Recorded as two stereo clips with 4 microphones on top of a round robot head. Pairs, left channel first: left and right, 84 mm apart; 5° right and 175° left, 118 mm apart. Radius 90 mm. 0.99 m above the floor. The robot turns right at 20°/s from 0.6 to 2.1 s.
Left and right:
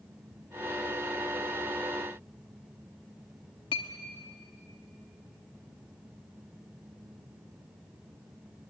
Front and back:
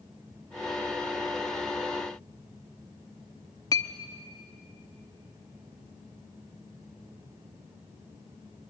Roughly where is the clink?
Ahead left.